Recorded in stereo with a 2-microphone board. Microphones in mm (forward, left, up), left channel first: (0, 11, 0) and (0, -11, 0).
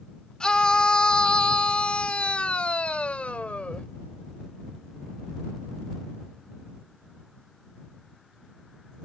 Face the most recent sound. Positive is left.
turn(degrees=70)  # may be behind; listen again after turning